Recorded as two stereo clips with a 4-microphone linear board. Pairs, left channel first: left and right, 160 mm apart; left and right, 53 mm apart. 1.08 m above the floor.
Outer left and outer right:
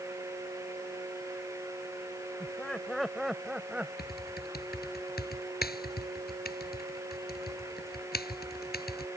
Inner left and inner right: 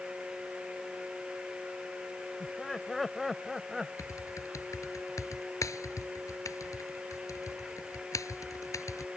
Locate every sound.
2.4 s laughter: 5° left (ahead or behind); by 3.9 s 10° right (ahead or behind)
4.0 s typing on a keyboard: 80° left